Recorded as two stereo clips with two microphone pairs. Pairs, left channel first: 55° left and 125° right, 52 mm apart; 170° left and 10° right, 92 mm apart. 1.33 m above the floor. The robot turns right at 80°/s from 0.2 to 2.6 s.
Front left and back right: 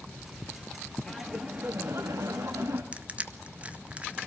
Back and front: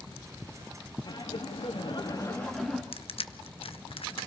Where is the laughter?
130° left, 2.5 m; by 2.8 s 110° right, 2.5 m.